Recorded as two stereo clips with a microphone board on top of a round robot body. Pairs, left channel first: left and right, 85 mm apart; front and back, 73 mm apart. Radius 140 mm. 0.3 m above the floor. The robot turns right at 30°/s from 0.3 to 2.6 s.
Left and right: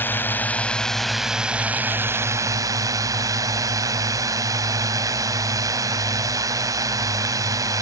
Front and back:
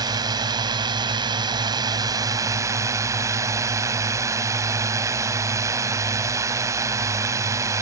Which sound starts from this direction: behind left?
A drone, at 0.0 s.